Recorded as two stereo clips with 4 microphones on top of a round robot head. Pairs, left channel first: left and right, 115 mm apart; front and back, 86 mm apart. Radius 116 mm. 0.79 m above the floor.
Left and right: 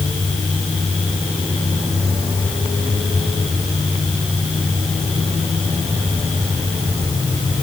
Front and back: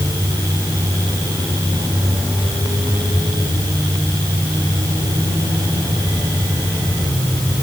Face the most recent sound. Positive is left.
No sound to turn to.